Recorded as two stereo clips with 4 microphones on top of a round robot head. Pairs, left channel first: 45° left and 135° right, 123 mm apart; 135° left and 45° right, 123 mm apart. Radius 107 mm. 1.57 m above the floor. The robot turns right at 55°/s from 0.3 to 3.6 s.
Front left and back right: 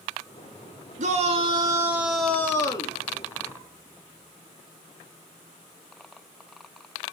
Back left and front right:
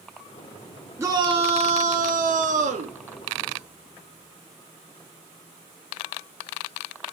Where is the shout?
110° right, 3 m; by 3.0 s 5° right, 3 m.